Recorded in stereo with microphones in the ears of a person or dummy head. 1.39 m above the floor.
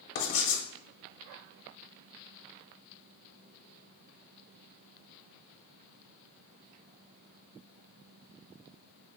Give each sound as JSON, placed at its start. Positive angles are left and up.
{"t": 0.1, "sound": "writing", "side_deg": 55, "distance_m": 0.8}